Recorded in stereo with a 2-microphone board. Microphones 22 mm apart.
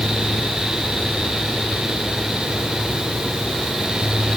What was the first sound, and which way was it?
Only background noise.